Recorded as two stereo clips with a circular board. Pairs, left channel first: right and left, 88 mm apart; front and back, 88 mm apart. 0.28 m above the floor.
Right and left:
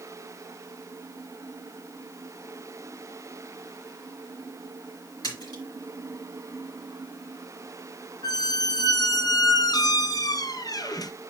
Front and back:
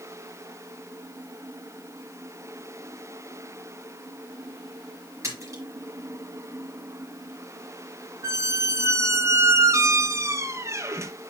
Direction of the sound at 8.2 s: 130° right.